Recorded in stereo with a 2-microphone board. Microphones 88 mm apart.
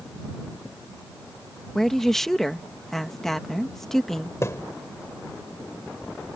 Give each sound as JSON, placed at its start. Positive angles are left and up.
{"t": 1.8, "sound": "a woman speaking", "side_deg": 5}
{"t": 4.4, "sound": "a thud", "side_deg": 35}